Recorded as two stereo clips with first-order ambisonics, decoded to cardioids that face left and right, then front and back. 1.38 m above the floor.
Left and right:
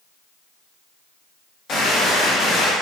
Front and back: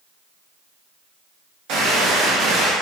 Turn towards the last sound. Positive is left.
turn(degrees=150)